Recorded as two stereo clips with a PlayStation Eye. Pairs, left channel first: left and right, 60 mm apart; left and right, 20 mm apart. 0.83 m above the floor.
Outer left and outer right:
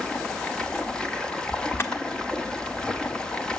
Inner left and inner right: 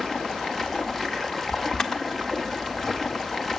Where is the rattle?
No rattle in this recording.